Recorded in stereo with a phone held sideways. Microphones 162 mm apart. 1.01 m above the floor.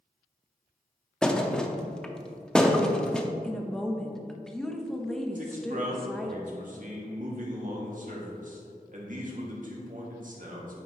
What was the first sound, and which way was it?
A thud, 5° left (ahead or behind).